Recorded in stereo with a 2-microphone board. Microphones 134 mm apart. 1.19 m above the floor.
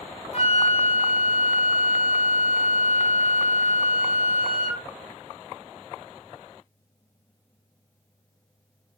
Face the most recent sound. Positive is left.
turn(degrees=55)  # may be behind; listen again after turning